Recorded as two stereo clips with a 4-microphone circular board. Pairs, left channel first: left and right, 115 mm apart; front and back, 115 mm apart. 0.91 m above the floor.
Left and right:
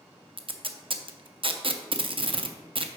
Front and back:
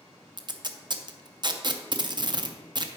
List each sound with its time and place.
0.4 s tape being pulled: 130° right, 0.5 m